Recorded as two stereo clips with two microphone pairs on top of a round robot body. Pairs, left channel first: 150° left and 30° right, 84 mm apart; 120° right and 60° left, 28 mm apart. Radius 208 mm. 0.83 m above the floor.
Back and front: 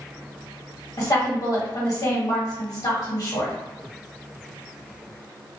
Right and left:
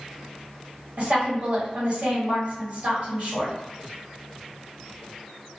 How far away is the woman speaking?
About 1.4 m.